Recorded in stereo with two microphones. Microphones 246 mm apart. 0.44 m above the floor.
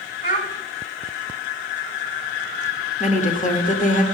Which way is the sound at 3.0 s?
30° left (ahead or behind).